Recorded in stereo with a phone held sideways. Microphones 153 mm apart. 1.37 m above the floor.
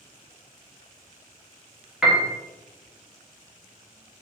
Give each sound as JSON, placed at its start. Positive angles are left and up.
{"t": 2.0, "sound": "a piano", "side_deg": -5, "distance_m": 1.0}